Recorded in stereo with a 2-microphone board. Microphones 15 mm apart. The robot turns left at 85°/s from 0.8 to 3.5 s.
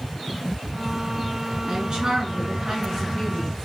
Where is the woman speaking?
50° right, 1.7 m; by 3.6 s 155° left, 1.7 m.